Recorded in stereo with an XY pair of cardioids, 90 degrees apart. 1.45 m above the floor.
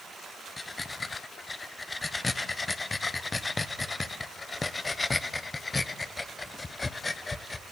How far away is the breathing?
About 0.8 m.